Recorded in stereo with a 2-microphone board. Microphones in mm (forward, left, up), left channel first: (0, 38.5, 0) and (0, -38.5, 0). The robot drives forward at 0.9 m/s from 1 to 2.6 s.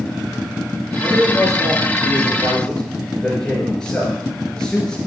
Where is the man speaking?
5° left (ahead or behind), 4.5 m; by 5.0 s 10° left (ahead or behind), 3 m.